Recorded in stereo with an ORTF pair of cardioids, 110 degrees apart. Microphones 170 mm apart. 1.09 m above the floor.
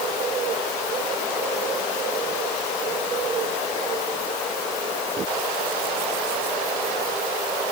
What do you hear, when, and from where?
Only background noise.